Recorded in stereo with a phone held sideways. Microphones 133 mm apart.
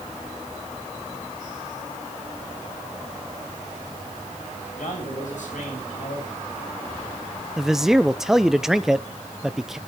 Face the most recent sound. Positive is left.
turn(degrees=-5)  # may be behind; listen again after turning